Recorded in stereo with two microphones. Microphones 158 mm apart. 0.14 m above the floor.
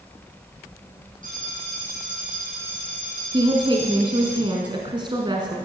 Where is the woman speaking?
30° right (ahead or behind), 1.2 m.